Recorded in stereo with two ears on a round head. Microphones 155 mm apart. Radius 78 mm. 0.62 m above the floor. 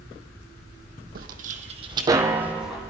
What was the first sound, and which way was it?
Footsteps, 55° right (ahead or behind).